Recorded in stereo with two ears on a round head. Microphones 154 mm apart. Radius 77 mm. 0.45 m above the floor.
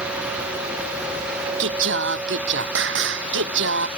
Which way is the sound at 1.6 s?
80° right.